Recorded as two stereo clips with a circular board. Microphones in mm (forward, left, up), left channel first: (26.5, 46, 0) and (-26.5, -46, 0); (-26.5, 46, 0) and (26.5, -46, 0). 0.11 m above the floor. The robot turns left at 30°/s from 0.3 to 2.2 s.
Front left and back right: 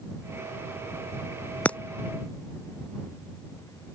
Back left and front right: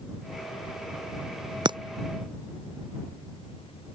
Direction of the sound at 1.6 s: 15° right.